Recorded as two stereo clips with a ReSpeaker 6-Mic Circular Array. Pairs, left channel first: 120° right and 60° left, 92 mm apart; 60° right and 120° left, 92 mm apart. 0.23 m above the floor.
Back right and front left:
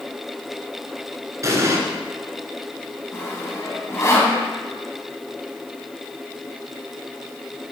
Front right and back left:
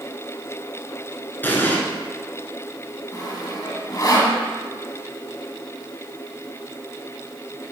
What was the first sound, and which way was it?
An explosion, 5° left.